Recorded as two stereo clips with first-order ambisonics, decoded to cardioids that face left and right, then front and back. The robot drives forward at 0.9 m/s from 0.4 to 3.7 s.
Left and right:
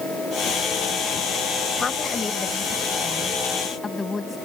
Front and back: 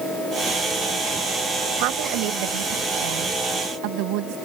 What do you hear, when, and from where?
1.8 s a woman speaking: 165° left; by 4.4 s 170° left